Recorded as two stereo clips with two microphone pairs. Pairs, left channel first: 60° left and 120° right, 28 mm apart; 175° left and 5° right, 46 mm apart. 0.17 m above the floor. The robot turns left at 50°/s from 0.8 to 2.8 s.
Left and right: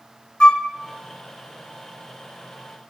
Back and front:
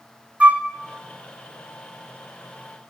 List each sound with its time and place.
0.4 s a flute: 45° left, 0.5 m